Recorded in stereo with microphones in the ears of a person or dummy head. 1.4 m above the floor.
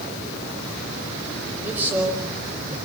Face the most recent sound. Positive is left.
turn(degrees=-10)  # may be behind; listen again after turning